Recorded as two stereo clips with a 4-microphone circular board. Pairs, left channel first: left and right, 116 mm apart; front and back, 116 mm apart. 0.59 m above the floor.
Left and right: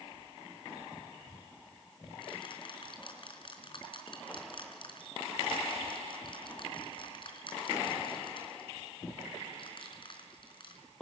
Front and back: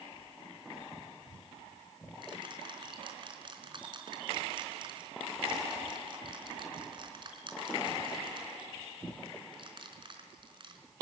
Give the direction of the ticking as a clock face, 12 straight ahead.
8 o'clock.